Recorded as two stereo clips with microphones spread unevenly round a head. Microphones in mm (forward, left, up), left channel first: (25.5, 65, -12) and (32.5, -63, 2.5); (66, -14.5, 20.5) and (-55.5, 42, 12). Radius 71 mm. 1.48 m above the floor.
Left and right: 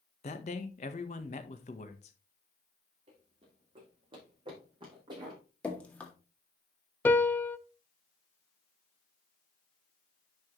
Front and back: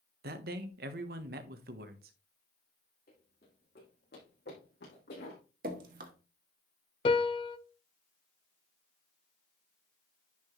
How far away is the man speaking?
About 1.2 m.